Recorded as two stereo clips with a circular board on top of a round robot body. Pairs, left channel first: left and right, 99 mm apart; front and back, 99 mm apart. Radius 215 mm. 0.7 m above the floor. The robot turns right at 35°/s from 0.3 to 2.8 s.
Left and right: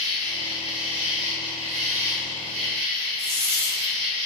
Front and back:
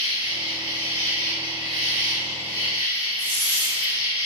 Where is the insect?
150° right, 1.1 m; by 4.3 s 60° right, 1.1 m.